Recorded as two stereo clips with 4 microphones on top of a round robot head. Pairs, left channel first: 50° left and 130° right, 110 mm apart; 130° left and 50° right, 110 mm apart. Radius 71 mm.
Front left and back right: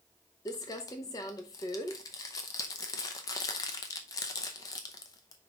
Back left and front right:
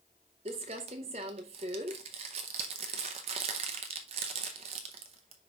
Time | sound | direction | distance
0.5 | crumpling | 10° right | 0.7 m